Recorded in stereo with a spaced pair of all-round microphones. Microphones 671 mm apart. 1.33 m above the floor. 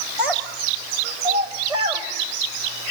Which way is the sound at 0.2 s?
50° right (ahead or behind).